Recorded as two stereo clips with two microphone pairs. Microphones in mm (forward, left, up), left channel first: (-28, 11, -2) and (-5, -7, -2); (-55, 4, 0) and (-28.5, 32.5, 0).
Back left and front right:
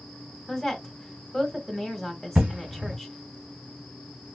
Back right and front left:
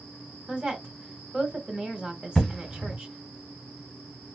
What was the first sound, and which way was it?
A woman speaking, 60° left.